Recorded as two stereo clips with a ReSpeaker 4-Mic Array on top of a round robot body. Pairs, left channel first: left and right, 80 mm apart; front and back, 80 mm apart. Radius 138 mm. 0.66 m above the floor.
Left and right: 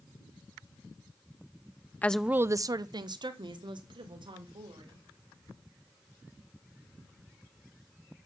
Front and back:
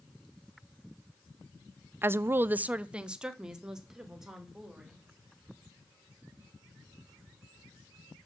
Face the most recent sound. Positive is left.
turn(degrees=-95)